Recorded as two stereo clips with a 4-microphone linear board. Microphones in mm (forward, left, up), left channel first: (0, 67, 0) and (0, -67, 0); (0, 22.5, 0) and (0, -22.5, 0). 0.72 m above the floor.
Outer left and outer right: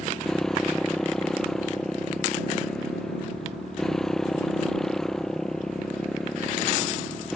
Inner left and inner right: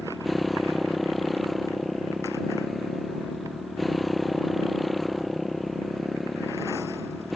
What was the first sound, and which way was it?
A motorcycle, 5° left (ahead or behind).